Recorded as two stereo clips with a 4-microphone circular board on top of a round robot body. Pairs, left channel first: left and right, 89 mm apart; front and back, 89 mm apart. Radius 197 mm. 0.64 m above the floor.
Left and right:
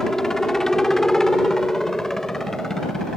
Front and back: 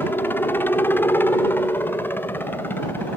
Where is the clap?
No clap in this recording.